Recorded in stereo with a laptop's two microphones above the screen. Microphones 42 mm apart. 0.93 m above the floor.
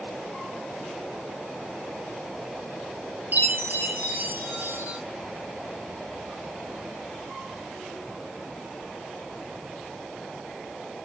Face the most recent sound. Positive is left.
turn(degrees=-55)  # may be behind; listen again after turning